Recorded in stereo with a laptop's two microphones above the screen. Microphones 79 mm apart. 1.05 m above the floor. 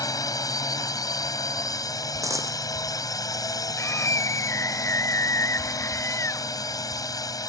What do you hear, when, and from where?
0.0 s a drone: 50° left (ahead or behind)
2.2 s a dropped coin: 45° right (ahead or behind)
3.8 s a scream: 40° left (ahead or behind)